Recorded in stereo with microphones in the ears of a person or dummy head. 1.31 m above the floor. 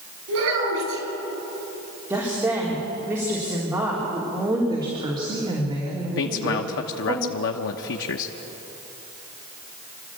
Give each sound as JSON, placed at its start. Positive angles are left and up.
{"t": 0.3, "sound": "a child speaking", "side_deg": -85, "distance_m": 10.0}
{"t": 2.1, "sound": "a woman speaking", "side_deg": -15, "distance_m": 4.0}
{"t": 4.7, "sound": "a woman speaking", "side_deg": -30, "distance_m": 3.0}
{"t": 6.2, "sound": "a man speaking", "side_deg": 70, "distance_m": 0.9}